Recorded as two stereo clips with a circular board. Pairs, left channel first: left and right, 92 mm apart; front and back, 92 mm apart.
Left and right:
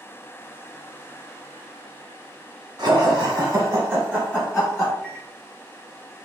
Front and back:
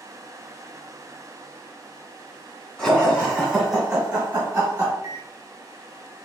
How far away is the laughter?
About 1.9 m.